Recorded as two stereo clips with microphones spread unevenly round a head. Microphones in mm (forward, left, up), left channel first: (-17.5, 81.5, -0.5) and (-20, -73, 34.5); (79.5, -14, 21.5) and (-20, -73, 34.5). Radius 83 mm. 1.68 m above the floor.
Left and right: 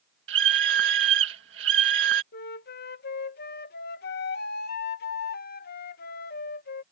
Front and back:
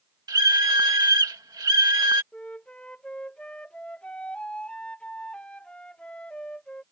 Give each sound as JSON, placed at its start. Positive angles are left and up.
{"t": 0.3, "sound": "a scream", "azimuth_deg": -90}
{"t": 2.3, "sound": "a flute", "azimuth_deg": 115}